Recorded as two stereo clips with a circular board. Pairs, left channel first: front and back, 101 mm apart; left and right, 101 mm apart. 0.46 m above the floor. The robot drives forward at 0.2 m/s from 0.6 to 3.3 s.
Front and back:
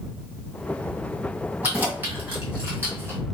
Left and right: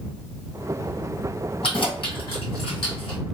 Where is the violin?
No violin in this recording.